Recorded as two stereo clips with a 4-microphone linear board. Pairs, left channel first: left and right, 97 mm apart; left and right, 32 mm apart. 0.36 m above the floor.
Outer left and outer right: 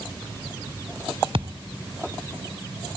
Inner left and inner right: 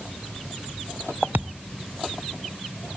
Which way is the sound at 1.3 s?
65° right (ahead or behind).